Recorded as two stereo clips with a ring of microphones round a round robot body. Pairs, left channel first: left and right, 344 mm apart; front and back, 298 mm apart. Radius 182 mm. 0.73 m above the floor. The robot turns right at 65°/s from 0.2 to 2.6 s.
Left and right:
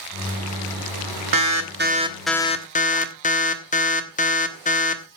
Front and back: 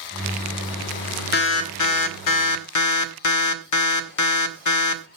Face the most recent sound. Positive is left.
turn(degrees=20)